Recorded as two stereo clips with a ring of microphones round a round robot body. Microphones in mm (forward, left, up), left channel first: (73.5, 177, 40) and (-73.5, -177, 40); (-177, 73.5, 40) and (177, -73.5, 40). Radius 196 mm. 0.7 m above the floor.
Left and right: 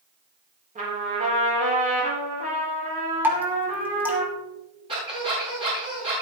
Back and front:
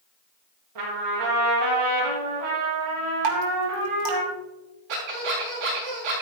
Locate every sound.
0.8 s a trumpet: 40° right, 6.5 m
3.2 s dripping: 30° right, 2.5 m
4.9 s a squeak: 35° right, 7 m